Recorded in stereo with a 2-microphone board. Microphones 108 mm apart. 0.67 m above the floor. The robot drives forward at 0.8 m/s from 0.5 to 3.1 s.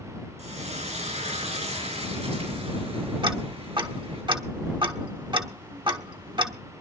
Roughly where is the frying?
Right.